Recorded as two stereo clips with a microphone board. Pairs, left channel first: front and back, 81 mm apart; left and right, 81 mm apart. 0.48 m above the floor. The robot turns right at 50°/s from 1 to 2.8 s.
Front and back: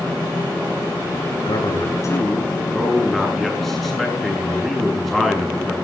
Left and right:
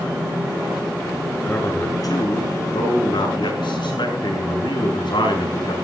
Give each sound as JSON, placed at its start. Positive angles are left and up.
{"t": 1.4, "sound": "a man speaking", "azimuth_deg": 15, "distance_m": 7.0}